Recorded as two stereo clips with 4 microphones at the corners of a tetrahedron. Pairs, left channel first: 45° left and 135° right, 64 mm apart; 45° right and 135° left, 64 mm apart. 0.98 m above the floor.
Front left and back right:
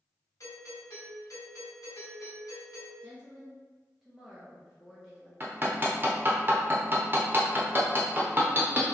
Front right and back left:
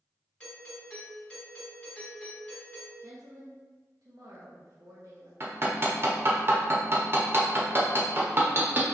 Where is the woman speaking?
145° left, 1.0 m.